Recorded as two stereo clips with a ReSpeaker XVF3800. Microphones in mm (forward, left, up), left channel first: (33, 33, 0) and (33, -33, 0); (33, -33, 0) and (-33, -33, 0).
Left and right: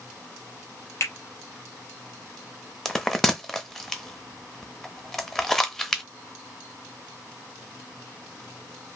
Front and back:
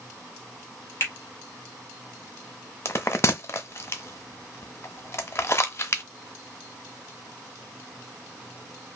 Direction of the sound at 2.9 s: 10° left.